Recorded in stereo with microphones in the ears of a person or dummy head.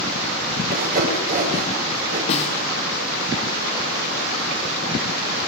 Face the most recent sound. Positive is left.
turn(degrees=40)  # may be behind; listen again after turning